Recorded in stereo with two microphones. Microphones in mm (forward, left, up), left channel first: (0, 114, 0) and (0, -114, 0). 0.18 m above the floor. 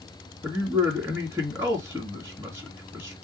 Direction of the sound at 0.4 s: 10° right (ahead or behind).